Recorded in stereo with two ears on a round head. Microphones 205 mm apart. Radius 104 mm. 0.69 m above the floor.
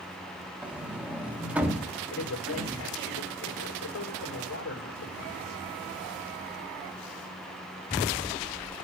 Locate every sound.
0.6 s a sliding door: 5° right (ahead or behind), 1.3 m
2.1 s a man speaking: 70° left (ahead or behind), 2 m